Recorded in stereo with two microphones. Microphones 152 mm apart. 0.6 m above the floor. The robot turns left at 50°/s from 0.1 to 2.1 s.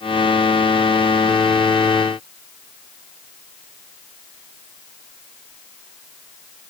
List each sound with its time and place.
Only background noise.